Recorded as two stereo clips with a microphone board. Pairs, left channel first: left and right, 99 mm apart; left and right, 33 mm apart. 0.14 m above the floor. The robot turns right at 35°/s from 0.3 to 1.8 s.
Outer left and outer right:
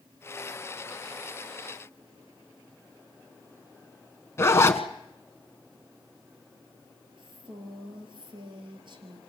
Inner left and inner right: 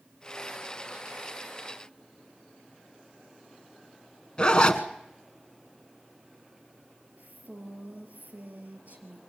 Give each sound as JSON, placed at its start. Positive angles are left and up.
{"t": 4.4, "sound": "a zipper", "side_deg": 30, "distance_m": 1.0}
{"t": 7.2, "sound": "a woman speaking", "side_deg": -55, "distance_m": 3.0}